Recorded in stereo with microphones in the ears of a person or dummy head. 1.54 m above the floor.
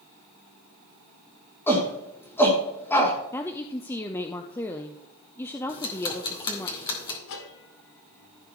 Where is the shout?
10° left (ahead or behind), 2.5 m.